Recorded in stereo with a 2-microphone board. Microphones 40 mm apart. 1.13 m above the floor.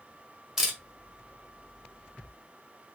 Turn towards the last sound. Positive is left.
turn(degrees=-15)  # may be behind; listen again after turning